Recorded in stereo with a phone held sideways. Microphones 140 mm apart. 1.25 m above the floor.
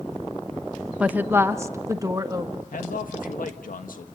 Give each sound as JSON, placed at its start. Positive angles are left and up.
{"t": 1.0, "sound": "a woman speaking", "side_deg": -10, "distance_m": 0.7}
{"t": 2.7, "sound": "a man speaking", "side_deg": 80, "distance_m": 1.5}